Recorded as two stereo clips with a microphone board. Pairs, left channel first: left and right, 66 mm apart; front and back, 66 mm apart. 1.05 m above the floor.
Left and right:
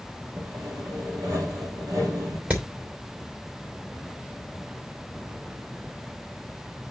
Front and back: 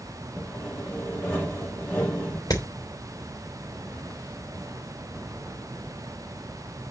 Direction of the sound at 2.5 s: 25° right.